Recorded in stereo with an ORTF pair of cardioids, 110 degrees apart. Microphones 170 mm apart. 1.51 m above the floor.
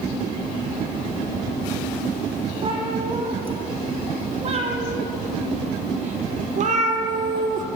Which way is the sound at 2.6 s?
35° right.